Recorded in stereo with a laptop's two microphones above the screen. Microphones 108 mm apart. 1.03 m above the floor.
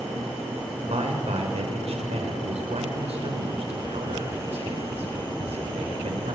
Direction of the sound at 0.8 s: 75° right (ahead or behind).